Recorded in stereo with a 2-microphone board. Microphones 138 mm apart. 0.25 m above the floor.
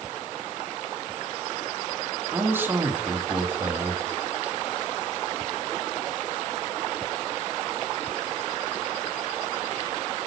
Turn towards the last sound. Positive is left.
turn(degrees=-15)  # may be behind; listen again after turning